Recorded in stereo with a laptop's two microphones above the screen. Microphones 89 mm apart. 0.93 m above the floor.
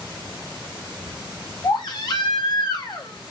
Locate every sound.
1.6 s a baby crying: 55° left (ahead or behind), 0.8 m